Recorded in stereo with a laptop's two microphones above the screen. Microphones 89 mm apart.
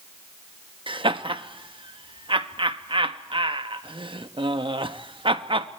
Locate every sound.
0.9 s laughter: 70° right (ahead or behind), 0.9 m